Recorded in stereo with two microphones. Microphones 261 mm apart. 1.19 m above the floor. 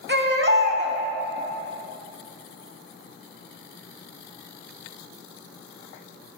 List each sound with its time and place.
0.1 s a baby crying: 45° right (ahead or behind), 1.0 m